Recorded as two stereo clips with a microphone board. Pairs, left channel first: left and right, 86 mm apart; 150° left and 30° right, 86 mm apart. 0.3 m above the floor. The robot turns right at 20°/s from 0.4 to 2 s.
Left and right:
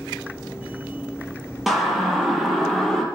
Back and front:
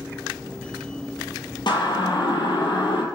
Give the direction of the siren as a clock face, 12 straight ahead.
6 o'clock.